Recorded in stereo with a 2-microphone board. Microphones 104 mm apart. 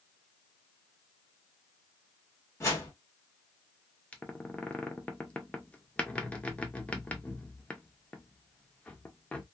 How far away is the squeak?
About 0.5 m.